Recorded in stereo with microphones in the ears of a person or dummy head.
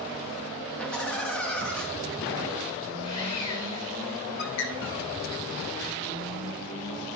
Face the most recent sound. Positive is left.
turn(degrees=60)  # may be behind; listen again after turning